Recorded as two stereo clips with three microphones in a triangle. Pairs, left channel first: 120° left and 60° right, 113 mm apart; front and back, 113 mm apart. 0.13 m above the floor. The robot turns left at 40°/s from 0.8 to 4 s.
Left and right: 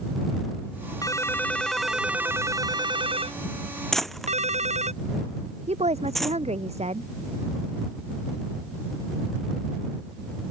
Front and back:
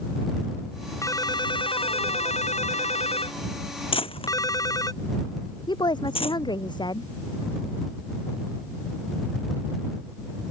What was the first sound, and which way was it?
A ringtone, 60° left.